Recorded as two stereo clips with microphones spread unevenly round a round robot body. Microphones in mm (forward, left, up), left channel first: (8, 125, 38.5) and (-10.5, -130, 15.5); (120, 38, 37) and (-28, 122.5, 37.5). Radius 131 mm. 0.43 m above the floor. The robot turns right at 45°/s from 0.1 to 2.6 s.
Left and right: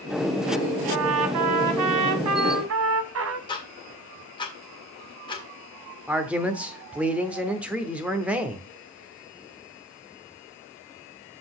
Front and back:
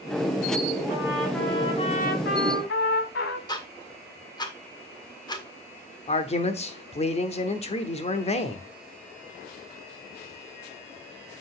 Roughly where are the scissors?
No scissors in this recording.